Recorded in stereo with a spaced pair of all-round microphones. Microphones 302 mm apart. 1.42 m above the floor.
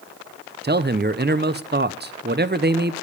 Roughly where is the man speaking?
Right.